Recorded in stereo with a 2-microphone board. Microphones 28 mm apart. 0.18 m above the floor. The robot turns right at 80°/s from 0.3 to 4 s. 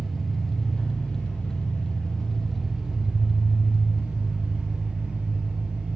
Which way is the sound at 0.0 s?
Straight ahead.